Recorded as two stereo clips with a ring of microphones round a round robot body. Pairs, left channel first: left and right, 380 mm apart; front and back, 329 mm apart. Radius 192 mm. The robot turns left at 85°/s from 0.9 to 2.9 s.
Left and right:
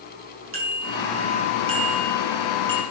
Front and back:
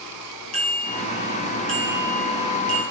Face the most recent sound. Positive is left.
turn(degrees=155)